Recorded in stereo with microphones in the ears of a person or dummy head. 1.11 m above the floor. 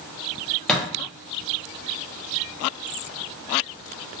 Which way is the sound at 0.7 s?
5° left (ahead or behind).